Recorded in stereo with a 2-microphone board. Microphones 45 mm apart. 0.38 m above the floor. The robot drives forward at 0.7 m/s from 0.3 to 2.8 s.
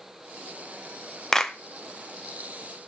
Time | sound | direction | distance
1.3 | a clap | 15° left (ahead or behind) | 0.6 m